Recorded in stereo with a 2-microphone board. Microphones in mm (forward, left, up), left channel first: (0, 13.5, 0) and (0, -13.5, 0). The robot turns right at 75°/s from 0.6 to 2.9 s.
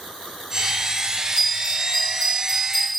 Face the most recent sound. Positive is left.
turn(degrees=10)